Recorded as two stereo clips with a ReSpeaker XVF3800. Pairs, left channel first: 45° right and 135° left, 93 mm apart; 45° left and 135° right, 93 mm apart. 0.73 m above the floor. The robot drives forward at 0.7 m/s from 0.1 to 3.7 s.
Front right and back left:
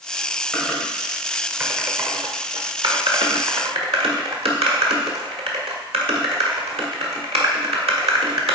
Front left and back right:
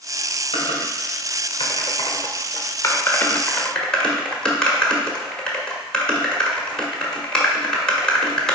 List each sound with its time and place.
0.5 s typing on a keyboard: 35° left, 1.8 m; by 8.6 s 125° left, 1.3 m